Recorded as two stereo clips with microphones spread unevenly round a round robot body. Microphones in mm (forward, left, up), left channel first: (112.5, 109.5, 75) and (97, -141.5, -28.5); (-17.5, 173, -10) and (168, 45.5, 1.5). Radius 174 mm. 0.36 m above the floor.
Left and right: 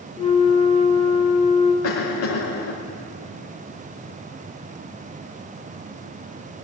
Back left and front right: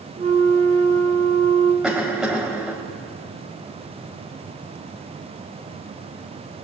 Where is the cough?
55° left, 1.7 m.